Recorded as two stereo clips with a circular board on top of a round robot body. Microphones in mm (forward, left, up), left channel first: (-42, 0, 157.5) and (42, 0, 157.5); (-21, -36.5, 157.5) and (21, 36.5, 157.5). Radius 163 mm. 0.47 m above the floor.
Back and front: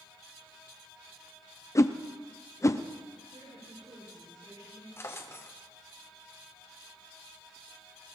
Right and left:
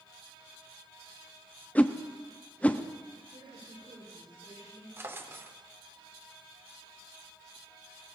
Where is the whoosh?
Straight behind, 1.0 m.